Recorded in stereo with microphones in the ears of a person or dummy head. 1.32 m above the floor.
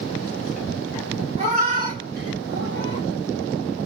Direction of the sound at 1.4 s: 40° right (ahead or behind).